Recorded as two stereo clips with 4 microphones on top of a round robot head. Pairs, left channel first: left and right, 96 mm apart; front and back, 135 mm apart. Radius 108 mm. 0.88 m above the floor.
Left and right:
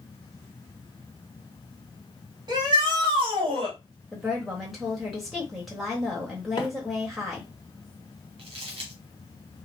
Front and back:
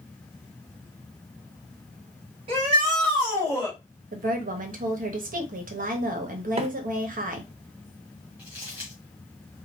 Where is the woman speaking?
175° right, 1.1 m.